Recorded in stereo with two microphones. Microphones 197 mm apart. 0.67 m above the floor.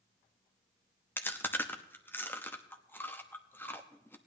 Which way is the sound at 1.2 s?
10° left (ahead or behind).